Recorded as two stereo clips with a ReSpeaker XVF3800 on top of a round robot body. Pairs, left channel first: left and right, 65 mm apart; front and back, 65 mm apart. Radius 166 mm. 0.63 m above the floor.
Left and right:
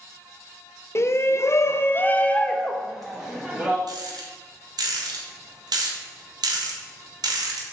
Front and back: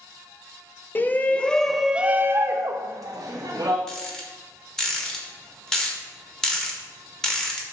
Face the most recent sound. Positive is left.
turn(degrees=-80)